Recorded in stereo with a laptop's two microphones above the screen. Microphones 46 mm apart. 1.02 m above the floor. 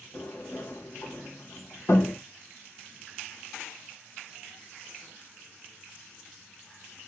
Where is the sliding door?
55° left (ahead or behind), 1.2 m.